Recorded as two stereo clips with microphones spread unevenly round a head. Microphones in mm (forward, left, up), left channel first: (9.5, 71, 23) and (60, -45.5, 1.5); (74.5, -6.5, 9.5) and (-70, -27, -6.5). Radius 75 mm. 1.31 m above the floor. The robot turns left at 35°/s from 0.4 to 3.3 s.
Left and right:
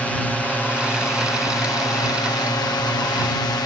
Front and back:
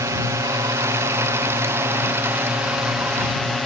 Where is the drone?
160° right; by 3.7 s 100° left.